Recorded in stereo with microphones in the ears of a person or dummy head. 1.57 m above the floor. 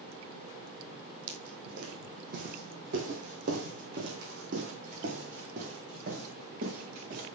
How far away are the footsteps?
About 3 m.